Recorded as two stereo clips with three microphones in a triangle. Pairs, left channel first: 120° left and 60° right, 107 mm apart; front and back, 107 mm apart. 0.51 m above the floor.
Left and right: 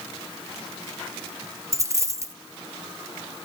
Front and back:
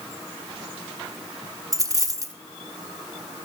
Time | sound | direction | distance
1.7 | a dropped coin | 125° right | 2 m